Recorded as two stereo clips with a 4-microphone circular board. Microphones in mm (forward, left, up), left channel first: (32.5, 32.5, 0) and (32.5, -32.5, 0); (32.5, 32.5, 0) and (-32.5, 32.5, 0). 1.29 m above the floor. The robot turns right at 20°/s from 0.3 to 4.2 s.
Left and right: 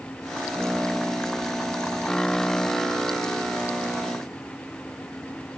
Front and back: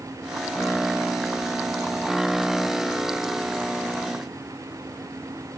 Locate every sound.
Only background noise.